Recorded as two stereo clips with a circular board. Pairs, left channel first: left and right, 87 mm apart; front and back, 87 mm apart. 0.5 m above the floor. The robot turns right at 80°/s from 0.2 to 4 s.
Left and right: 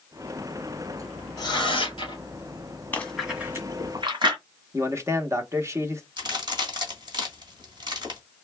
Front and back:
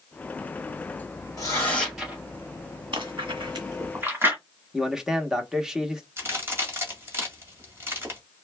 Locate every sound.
1.4 s tearing paper: 45° left, 2 m; by 2.2 s 115° left, 2 m
2.9 s chewing: 160° left, 1.4 m; by 4.4 s 115° right, 1.4 m
4.7 s a man speaking: 100° right, 0.8 m
6.2 s a crack: 120° right, 1.6 m